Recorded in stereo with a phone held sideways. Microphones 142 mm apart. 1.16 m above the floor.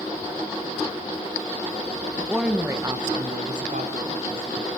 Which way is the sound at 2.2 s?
5° left (ahead or behind).